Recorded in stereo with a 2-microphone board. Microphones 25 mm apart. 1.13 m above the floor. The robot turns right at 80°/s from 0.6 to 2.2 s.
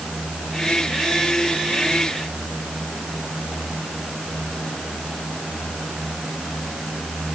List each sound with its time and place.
Only background noise.